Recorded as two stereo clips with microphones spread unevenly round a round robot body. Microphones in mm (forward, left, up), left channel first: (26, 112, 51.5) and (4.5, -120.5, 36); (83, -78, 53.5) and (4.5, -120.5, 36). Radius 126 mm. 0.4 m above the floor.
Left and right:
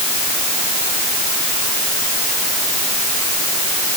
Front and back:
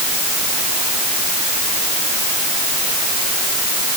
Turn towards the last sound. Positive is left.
No sound to turn to.